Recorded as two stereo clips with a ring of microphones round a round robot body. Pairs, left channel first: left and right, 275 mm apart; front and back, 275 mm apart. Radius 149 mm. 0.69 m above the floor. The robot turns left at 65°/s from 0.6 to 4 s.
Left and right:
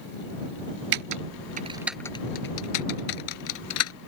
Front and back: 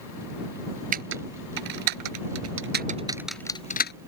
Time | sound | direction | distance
0.9 | typing on a keyboard | 115° right | ?